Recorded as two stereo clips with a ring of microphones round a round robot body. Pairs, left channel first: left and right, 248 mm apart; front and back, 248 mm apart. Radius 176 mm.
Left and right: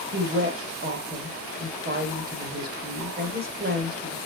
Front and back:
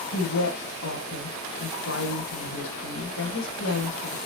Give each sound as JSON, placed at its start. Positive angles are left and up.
{"t": 0.1, "sound": "a woman speaking", "azimuth_deg": -45, "distance_m": 2.5}